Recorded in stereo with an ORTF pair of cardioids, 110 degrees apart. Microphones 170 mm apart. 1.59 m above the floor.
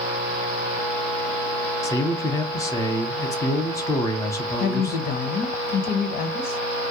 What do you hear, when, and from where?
1.8 s a man speaking: 20° left, 0.8 m
4.6 s a woman speaking: 60° left, 0.7 m